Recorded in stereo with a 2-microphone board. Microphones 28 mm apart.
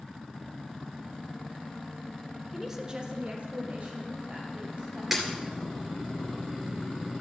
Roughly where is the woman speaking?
Centre.